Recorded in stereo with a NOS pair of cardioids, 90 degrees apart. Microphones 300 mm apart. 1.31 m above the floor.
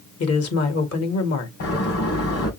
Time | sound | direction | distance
0.2 | a woman speaking | 55° left | 2 m
1.6 | a door slam | 55° left | 3.5 m